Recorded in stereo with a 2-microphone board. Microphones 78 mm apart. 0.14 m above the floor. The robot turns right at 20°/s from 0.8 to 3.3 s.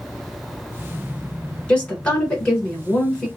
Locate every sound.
1.7 s a woman speaking: 15° left (ahead or behind), 1.6 m; by 3.3 s 10° left (ahead or behind), 1.6 m